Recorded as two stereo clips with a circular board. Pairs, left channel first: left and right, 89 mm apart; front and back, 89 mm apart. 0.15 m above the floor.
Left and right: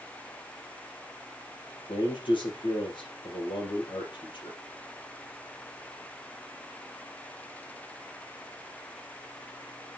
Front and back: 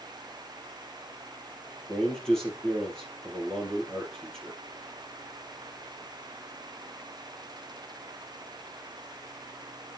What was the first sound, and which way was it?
A man speaking, 85° left.